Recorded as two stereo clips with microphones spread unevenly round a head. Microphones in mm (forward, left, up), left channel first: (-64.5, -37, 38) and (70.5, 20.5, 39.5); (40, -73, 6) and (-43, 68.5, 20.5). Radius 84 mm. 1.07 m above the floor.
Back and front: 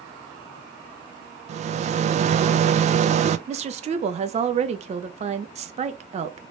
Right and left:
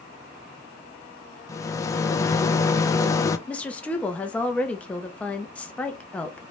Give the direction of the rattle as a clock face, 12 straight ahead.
12 o'clock.